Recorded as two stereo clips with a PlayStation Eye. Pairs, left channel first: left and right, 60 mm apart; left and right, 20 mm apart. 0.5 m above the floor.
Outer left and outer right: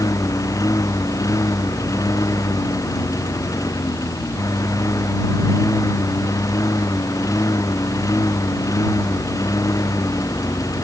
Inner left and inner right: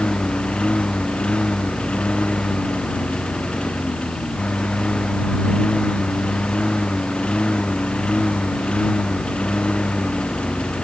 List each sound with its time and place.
0.0 s a lawn mower: 65° left (ahead or behind)